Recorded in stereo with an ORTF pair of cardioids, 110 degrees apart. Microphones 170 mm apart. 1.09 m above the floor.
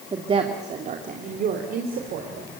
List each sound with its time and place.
0.1 s a woman speaking: 30° right, 2 m; by 2.5 s 70° right, 4 m